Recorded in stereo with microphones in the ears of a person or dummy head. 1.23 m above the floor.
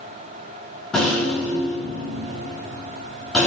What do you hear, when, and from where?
0.9 s a rattle: 5° left (ahead or behind), 3.5 m